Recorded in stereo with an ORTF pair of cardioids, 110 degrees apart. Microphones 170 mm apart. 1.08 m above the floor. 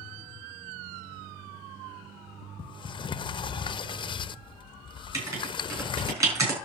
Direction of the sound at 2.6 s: 30° left.